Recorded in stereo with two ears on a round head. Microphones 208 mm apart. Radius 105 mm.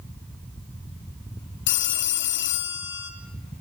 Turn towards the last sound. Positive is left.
turn(degrees=55)  # may be behind; listen again after turning